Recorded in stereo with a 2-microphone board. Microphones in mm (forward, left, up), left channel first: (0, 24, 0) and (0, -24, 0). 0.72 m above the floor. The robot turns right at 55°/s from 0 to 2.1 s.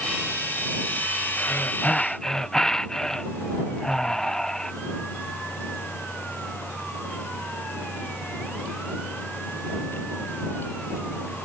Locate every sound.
1.4 s breathing: 130° left; by 4.7 s 170° left